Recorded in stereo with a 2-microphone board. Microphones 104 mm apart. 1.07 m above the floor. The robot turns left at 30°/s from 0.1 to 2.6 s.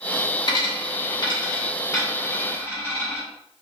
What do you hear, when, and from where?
0.5 s a dropped coin: 40° left (ahead or behind), 1.2 m; by 3.2 s 20° left (ahead or behind), 1.2 m